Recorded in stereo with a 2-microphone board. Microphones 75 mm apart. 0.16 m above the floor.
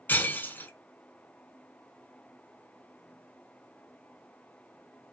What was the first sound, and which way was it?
Breaking glass, 30° left (ahead or behind).